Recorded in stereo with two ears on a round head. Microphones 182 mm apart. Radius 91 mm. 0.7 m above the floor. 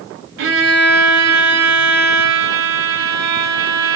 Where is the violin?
70° right (ahead or behind), 2.5 m.